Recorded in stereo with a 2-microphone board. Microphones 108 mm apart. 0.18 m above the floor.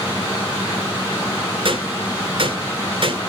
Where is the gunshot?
55° right (ahead or behind), 2.5 m.